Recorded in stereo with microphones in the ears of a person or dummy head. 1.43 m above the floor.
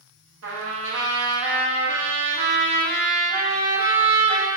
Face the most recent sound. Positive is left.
turn(degrees=-80)